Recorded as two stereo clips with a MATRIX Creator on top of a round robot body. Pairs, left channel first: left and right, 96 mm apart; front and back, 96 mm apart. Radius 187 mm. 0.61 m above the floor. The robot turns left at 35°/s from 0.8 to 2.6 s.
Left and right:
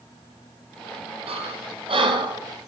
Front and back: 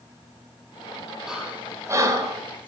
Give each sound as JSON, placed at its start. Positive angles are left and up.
{"t": 1.3, "sound": "breathing", "azimuth_deg": -95, "distance_m": 5.0}